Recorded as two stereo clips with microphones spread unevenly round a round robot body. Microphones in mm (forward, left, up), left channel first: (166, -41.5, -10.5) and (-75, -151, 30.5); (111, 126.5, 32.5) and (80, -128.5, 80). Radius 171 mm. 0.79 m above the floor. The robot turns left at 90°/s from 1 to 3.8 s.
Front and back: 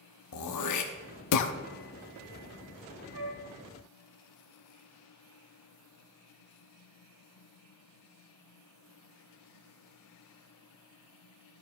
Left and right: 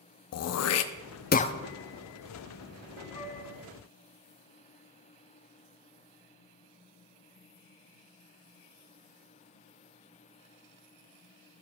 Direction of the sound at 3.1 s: 160° left.